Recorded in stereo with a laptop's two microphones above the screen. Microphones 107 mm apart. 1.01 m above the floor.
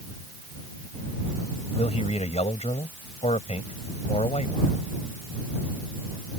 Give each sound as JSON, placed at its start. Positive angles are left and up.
{"t": 1.7, "sound": "a man speaking", "side_deg": 85}